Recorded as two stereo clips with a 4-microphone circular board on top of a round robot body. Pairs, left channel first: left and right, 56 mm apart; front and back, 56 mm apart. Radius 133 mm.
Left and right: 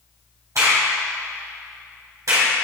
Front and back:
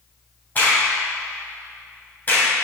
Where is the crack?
60° right, 3.5 m.